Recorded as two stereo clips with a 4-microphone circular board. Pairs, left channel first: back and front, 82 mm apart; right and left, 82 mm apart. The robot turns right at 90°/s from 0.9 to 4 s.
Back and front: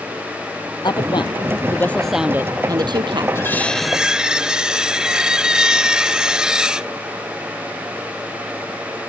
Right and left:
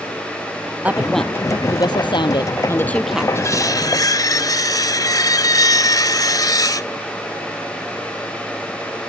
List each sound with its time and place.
0.8 s a woman speaking: 160° left; by 3.2 s 15° left
3.4 s cutlery clinking: 135° right; by 6.9 s 80° right